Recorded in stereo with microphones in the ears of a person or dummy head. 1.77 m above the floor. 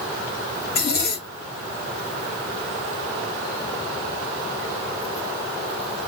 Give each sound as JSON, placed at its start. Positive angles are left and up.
{"t": 0.7, "sound": "a zipper", "side_deg": 55, "distance_m": 1.2}